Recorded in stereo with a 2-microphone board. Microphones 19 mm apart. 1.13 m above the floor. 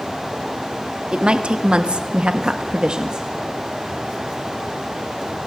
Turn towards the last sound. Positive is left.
turn(degrees=-40)  # may be behind; listen again after turning